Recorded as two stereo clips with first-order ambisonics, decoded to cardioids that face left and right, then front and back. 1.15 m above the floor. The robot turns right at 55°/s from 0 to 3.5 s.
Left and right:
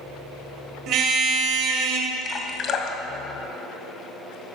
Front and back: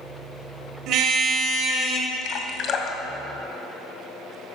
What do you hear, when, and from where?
0.9 s a car horn: 140° right, 2.5 m; by 2.1 s 70° right, 2.5 m
2.2 s dripping: 20° left, 1.5 m; by 4.3 s 90° left, 1.5 m